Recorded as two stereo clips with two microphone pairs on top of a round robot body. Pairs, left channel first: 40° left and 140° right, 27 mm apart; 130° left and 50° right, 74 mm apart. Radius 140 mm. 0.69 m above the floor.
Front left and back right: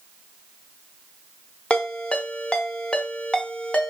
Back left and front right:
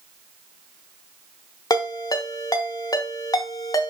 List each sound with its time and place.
1.7 s a ringtone: 90° left, 1.1 m